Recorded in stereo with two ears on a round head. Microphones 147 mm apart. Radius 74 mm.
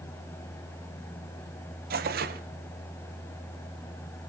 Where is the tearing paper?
60° right (ahead or behind), 0.8 m.